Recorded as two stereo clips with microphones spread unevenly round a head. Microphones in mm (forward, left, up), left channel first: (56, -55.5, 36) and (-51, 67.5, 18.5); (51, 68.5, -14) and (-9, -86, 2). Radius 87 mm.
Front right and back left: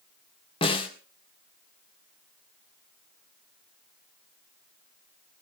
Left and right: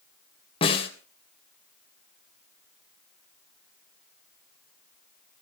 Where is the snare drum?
10° left, 3 m.